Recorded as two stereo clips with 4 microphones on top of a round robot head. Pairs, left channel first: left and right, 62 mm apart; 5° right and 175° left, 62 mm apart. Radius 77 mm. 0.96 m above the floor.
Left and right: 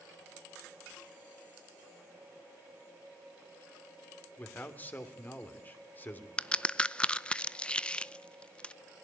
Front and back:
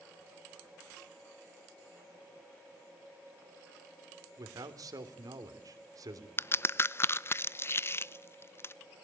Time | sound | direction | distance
4.4 | a man speaking | 150° left | 3 m
6.4 | a crack | 20° left | 0.8 m